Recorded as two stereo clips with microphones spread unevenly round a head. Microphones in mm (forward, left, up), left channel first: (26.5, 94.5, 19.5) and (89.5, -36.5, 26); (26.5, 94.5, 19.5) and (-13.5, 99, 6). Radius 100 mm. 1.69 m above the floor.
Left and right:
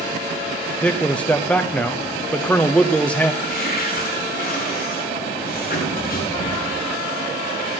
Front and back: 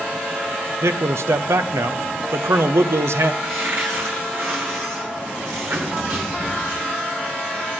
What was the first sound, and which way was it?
A man speaking, 160° right.